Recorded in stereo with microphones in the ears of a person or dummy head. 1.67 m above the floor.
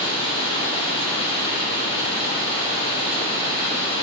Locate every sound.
0.0 s running water: 20° left (ahead or behind), 1.5 m